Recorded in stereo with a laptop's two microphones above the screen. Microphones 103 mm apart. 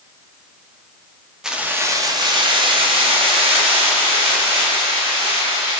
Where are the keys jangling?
5° right (ahead or behind), 0.5 m; by 5.8 s 80° right, 2.5 m.